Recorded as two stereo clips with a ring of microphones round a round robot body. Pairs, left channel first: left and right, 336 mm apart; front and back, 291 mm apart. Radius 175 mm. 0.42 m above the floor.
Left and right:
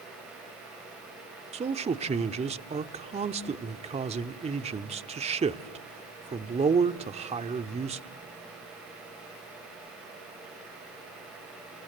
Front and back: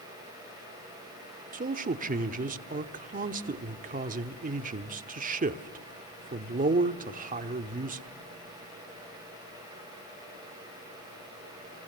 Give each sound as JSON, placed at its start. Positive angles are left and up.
{"t": 1.5, "sound": "a man speaking", "azimuth_deg": -145, "distance_m": 0.9}